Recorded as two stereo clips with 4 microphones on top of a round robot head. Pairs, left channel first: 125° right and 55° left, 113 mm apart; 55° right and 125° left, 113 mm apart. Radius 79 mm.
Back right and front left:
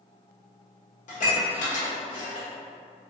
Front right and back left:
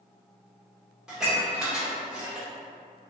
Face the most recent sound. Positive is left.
turn(degrees=-150)